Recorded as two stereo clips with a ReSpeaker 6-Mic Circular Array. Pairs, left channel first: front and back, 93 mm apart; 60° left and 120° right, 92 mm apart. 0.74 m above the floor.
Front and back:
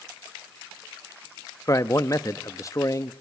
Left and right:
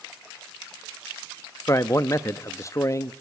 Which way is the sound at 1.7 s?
25° left.